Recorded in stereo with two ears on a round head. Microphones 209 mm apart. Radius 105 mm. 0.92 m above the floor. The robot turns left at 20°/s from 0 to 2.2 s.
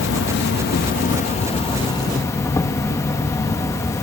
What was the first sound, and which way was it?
An insect, 55° left.